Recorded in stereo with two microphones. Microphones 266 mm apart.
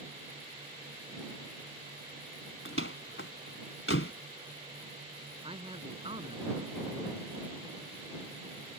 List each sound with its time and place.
2.6 s a door slam: 50° left (ahead or behind)
5.4 s a man speaking: 20° right (ahead or behind)